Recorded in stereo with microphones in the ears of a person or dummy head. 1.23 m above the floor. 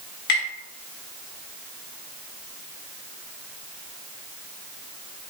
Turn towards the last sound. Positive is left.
turn(degrees=60)  # may be behind; listen again after turning